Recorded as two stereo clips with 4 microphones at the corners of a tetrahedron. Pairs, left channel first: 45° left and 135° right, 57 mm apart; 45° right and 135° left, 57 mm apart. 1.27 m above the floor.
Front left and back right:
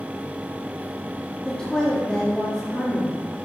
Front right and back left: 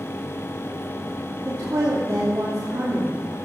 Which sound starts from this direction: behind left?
A woman speaking, at 1.4 s.